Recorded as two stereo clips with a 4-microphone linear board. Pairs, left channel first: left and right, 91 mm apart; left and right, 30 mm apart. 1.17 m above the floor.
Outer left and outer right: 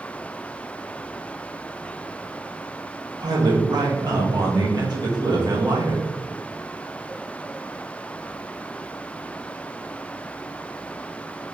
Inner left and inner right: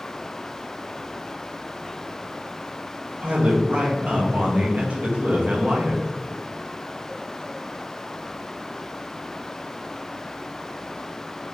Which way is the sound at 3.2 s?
45° right (ahead or behind).